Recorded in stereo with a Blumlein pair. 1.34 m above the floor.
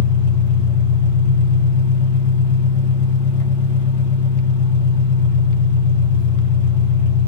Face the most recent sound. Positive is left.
turn(degrees=50)